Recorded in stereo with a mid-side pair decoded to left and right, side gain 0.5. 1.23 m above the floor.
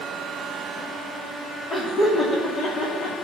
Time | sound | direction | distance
1.7 | laughter | 50° left | 2.5 m